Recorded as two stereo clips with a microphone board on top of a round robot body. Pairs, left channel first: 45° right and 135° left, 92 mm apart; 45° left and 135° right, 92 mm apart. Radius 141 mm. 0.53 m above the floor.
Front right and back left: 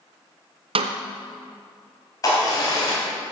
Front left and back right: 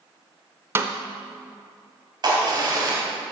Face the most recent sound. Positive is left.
turn(degrees=-95)